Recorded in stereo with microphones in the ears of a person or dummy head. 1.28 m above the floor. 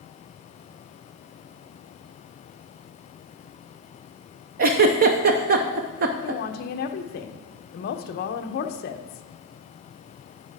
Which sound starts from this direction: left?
A woman speaking, at 6.2 s.